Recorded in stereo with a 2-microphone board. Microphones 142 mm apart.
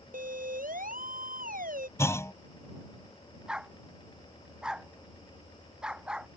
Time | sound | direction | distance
0.1 | a siren | 80° right | ?
2.0 | a clunk | 20° left (ahead or behind) | ?
3.5 | a dog barking | 5° right (ahead or behind) | ?